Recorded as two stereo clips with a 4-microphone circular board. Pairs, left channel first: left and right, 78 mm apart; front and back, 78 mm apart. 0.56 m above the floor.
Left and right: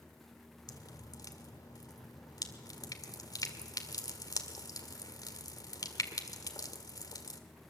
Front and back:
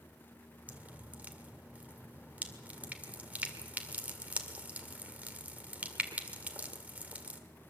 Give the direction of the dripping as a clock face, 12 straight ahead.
8 o'clock.